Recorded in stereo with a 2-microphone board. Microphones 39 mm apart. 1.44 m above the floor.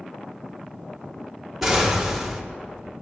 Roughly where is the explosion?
Centre.